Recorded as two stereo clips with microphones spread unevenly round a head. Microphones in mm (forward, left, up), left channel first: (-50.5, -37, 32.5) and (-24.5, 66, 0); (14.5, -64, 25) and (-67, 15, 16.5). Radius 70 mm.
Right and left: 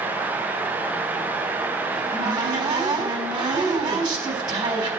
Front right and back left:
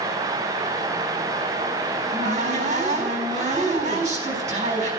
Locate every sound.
1.9 s a cupboard door: 110° left, 4 m